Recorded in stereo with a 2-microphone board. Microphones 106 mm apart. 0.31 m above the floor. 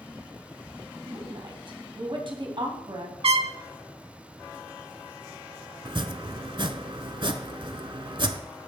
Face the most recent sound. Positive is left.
turn(degrees=-50)  # may be behind; listen again after turning